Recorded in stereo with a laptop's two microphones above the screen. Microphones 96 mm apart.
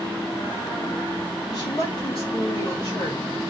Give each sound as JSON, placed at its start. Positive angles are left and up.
{"t": 1.5, "sound": "a woman speaking", "side_deg": 40, "distance_m": 1.6}